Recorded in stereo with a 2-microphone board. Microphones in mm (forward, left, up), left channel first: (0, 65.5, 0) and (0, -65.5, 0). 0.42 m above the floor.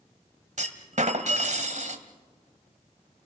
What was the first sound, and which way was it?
A clunk, 65° right (ahead or behind).